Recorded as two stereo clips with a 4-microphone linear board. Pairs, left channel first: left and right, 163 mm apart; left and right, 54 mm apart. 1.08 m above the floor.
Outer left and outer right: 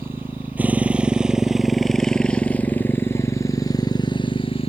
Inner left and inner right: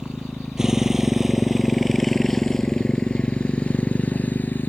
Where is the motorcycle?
15° right (ahead or behind); by 4.7 s 35° left (ahead or behind).